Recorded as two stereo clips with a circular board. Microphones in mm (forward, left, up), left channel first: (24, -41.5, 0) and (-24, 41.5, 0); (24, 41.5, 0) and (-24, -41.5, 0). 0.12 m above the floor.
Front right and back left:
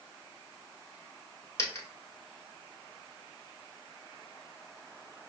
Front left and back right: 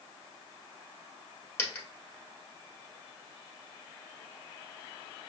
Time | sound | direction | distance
1.6 | a dropped coin | 5° right | 1.4 m